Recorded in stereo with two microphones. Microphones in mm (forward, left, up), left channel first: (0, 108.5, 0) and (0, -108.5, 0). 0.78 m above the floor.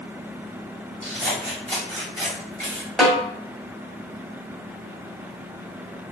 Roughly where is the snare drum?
Centre.